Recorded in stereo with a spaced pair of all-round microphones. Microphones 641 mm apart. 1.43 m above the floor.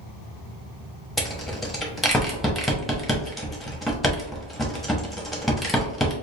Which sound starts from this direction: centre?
A rattle, at 1.2 s.